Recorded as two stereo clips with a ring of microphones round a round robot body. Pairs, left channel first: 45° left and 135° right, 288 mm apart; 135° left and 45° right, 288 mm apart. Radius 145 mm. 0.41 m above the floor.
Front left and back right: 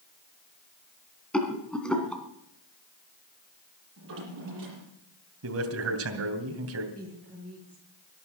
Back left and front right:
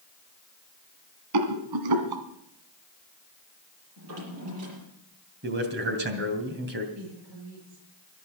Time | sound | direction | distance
1.3 | a rattle | 40° right | 2 m
4.0 | a drawer | 85° right | 6.5 m
5.4 | a man speaking | 95° right | 2.5 m
7.0 | a woman speaking | 40° right | 9 m